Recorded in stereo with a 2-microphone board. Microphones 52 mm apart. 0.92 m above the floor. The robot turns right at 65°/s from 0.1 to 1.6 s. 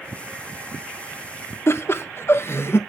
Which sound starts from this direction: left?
Laughter, at 1.7 s.